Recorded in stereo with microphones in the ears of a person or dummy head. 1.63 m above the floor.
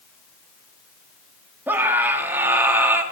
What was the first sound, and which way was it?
A scream, 10° right (ahead or behind).